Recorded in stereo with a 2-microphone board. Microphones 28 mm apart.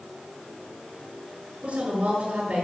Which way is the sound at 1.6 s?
45° right (ahead or behind).